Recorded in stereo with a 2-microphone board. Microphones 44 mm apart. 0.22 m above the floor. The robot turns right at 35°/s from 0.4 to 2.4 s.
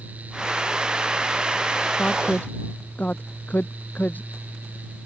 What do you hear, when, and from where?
2.0 s a woman speaking: 25° left (ahead or behind); by 4.3 s 40° left (ahead or behind)